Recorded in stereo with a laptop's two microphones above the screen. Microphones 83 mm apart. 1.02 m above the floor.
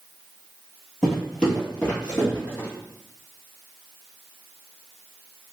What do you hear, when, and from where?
1.0 s footsteps: 5° left (ahead or behind), 1.2 m; by 2.7 s 25° left (ahead or behind), 2.0 m